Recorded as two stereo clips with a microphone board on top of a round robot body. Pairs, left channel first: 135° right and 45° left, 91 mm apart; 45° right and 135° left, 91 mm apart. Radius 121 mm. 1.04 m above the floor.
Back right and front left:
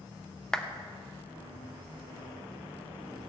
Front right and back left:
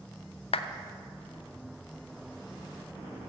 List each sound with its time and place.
0.5 s a clap: 50° right, 0.8 m